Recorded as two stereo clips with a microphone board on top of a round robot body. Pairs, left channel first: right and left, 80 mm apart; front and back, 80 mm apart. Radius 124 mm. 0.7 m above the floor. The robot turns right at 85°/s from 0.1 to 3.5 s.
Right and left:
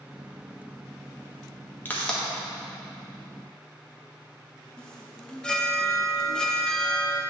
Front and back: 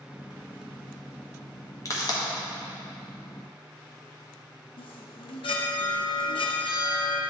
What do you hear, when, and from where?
1.9 s a pop: 30° right, 1.4 m; by 2.2 s straight ahead, 1.4 m
4.8 s a chime: 10° right, 0.5 m